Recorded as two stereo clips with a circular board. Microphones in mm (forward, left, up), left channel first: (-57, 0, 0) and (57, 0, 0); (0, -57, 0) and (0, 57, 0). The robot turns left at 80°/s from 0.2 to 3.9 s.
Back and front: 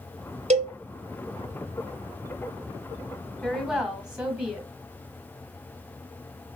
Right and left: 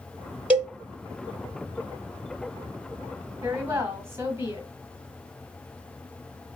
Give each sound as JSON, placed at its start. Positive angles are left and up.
{"t": 0.5, "sound": "a cowbell", "azimuth_deg": 10, "distance_m": 0.8}
{"t": 3.4, "sound": "a woman speaking", "azimuth_deg": 105, "distance_m": 1.1}